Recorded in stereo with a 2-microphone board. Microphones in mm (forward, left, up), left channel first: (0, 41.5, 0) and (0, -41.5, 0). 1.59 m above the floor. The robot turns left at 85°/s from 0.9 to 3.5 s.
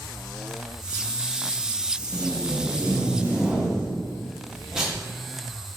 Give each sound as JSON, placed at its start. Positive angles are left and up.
{"t": 2.1, "sound": "tape being pulled", "azimuth_deg": -55, "distance_m": 0.7}